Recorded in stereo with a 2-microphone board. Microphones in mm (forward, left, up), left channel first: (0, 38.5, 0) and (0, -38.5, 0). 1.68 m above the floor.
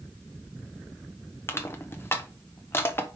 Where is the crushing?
30° left (ahead or behind), 1.1 m.